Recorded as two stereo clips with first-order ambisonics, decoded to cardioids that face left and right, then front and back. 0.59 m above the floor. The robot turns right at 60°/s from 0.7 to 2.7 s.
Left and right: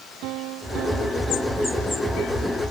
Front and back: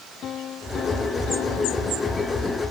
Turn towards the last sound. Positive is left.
turn(degrees=60)